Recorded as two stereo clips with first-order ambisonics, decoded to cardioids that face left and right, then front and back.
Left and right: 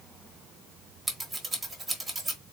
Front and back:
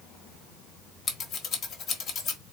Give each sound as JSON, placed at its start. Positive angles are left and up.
{"t": 1.1, "sound": "scissors", "azimuth_deg": -20, "distance_m": 1.1}